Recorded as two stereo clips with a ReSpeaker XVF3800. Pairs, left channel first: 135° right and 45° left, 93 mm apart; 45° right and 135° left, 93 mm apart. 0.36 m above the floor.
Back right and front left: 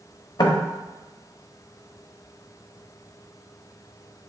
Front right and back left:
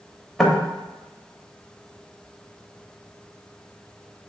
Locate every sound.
0.4 s knocking: 130° right, 0.8 m